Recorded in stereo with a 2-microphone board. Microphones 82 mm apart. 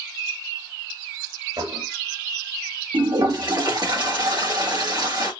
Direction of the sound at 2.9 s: 60° right (ahead or behind).